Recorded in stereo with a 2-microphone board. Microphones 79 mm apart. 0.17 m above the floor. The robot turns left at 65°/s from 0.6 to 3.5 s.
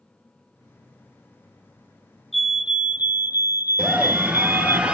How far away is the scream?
About 3 m.